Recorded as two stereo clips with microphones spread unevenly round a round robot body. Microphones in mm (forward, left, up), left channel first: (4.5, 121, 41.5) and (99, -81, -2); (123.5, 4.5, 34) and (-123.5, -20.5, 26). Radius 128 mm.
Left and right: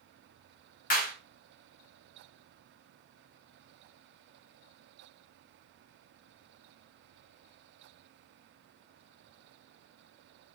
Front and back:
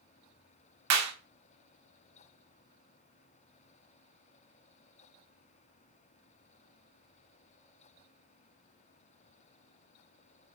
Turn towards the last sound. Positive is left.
turn(degrees=175)